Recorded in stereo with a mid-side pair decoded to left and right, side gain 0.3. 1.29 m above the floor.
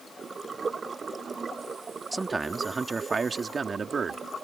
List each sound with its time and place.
2.1 s a man speaking: 35° right; by 4.2 s 60° right